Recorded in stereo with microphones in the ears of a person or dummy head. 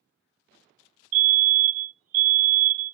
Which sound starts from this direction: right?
A fire alarm, at 1.1 s.